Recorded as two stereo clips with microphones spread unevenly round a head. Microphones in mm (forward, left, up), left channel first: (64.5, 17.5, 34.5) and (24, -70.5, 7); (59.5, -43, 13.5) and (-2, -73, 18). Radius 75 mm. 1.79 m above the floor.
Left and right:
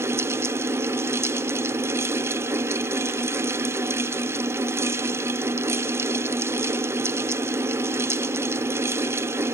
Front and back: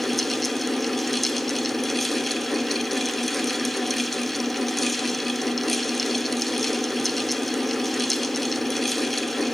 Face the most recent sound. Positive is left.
turn(degrees=-60)